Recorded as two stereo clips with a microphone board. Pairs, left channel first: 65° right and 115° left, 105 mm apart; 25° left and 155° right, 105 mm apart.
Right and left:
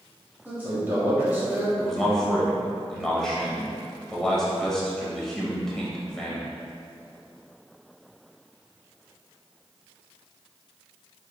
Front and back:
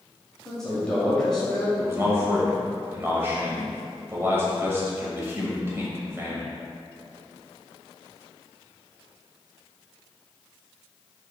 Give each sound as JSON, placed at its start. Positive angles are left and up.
{"t": 0.5, "sound": "a man speaking", "azimuth_deg": 95, "distance_m": 1.4}
{"t": 1.8, "sound": "a man speaking", "azimuth_deg": -150, "distance_m": 0.9}